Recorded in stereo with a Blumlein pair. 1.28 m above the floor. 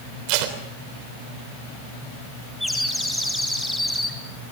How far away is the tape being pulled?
About 3.5 m.